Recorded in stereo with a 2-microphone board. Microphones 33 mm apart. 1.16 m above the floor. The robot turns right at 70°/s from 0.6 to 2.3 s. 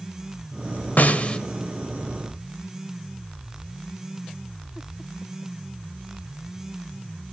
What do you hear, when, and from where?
1.0 s a snare drum: 55° left (ahead or behind), 1.7 m; by 1.4 s 30° left (ahead or behind), 1.7 m